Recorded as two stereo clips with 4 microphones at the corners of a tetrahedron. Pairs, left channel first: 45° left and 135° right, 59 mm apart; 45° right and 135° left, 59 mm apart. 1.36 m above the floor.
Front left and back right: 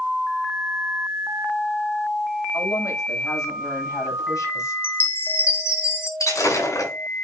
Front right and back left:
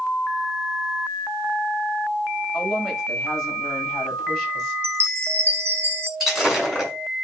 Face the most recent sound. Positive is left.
turn(degrees=50)